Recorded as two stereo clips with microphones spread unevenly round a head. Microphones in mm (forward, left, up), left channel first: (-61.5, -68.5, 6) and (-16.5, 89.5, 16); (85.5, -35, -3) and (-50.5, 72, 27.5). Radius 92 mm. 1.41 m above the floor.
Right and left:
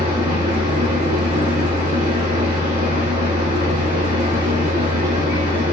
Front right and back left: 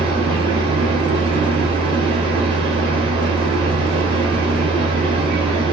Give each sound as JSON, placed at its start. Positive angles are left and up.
{"t": 0.0, "sound": "a machine running", "azimuth_deg": 95, "distance_m": 1.2}